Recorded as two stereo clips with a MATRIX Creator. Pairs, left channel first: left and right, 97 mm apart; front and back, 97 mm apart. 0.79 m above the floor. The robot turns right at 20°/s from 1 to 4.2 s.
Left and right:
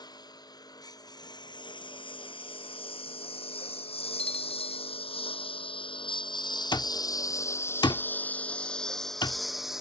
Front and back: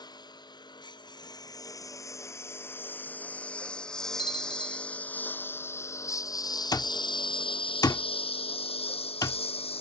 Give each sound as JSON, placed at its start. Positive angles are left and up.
{"t": 0.0, "sound": "a lawn mower", "azimuth_deg": 45}
{"t": 4.2, "sound": "a bell", "azimuth_deg": 170}
{"t": 6.7, "sound": "an alarm clock", "azimuth_deg": 50}